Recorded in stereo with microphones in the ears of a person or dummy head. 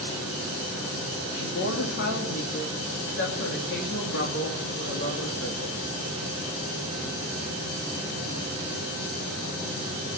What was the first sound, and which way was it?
A woman speaking, 65° left (ahead or behind).